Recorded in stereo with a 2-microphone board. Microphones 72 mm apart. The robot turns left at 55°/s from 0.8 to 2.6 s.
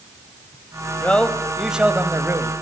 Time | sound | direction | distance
1.0 | a man speaking | 25° left | 1.8 m